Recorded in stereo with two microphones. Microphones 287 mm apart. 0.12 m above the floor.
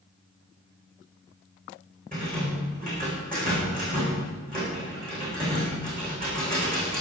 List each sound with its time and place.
2.1 s a rattle: 30° right (ahead or behind), 8.5 m